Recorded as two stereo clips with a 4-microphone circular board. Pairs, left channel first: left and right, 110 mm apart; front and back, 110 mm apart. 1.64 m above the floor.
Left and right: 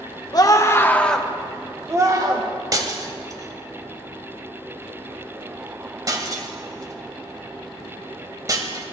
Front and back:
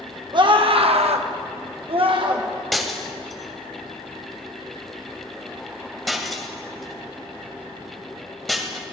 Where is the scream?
140° left, 1.6 m; by 2.5 s 140° right, 1.8 m.